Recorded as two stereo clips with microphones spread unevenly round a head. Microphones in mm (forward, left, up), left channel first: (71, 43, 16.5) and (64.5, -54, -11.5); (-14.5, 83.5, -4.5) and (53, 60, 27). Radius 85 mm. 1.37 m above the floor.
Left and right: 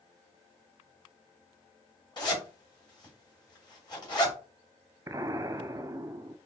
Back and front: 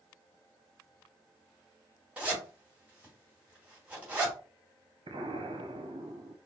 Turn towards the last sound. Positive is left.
turn(degrees=-30)